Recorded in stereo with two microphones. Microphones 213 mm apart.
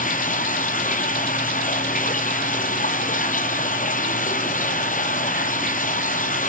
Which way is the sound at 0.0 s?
40° left (ahead or behind).